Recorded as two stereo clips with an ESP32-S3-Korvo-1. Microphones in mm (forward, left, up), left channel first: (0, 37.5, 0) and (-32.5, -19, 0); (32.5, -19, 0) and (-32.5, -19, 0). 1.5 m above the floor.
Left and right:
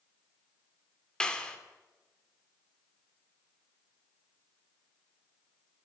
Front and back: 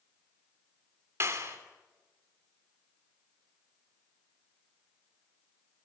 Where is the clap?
135° left, 3 m.